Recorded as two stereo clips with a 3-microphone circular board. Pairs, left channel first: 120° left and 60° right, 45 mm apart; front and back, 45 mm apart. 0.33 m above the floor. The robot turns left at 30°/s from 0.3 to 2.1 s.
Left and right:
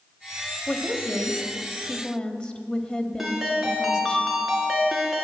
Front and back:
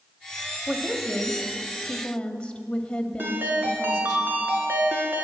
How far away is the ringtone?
About 2 m.